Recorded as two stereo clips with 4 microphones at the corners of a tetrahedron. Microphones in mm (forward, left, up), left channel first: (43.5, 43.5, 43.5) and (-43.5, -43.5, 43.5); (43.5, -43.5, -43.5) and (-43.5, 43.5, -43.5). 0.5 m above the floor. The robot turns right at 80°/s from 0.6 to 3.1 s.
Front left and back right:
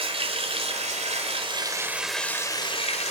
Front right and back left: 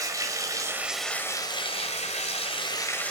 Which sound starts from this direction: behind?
Running water, at 0.0 s.